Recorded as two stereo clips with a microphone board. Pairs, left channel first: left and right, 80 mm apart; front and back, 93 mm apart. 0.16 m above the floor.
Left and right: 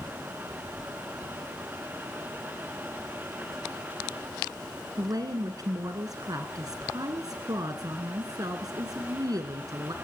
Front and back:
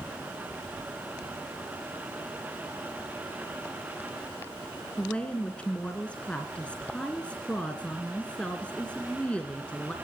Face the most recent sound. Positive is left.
turn(degrees=-75)